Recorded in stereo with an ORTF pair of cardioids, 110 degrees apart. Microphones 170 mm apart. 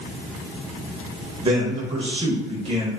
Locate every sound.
1.4 s a man speaking: 25° right, 0.8 m